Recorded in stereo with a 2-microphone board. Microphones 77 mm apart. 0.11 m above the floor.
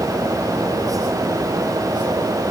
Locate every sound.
Only background noise.